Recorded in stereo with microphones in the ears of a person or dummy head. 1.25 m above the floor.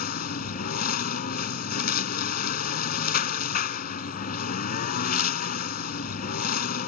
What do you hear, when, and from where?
0.0 s a lawn mower: 50° left (ahead or behind)